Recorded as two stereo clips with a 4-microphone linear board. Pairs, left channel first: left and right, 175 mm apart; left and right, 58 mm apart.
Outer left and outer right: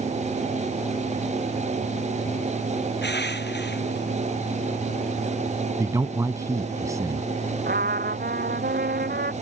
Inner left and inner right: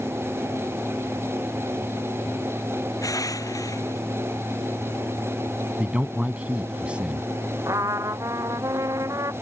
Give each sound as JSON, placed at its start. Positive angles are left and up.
{"t": 3.0, "sound": "crushing", "side_deg": 80}
{"t": 5.8, "sound": "a man speaking", "side_deg": -20}
{"t": 7.7, "sound": "a trumpet", "side_deg": -60}